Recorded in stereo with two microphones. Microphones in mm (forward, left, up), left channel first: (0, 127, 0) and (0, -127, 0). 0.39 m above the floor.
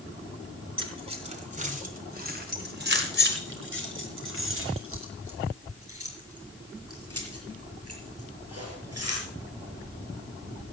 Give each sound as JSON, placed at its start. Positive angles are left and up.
{"t": 0.8, "sound": "keys jangling", "side_deg": -20, "distance_m": 2.5}